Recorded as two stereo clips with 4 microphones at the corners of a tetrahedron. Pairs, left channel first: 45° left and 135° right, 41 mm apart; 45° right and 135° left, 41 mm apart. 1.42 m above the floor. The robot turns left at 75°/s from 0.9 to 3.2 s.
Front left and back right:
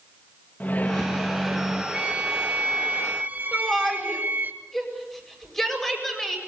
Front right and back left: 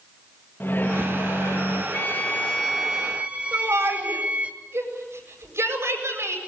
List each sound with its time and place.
0.6 s a microwave: 10° right, 1.9 m; by 1.8 s 80° right, 1.9 m
1.9 s a violin: 75° right, 2 m; by 4.5 s 170° right, 2 m
3.5 s a shout: 125° left, 7.5 m